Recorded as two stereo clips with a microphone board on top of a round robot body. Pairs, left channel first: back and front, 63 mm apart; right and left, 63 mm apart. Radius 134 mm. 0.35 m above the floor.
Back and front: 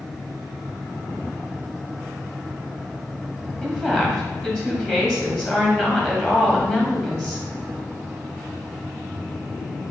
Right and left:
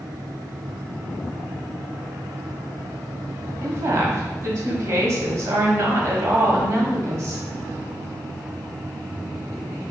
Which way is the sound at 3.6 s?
115° left.